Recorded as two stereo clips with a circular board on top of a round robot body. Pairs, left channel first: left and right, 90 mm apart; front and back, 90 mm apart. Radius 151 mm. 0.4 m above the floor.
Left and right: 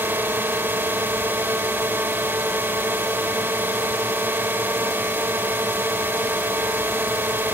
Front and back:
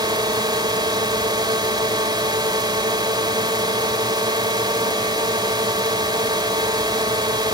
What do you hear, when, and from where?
0.0 s a drone: 155° right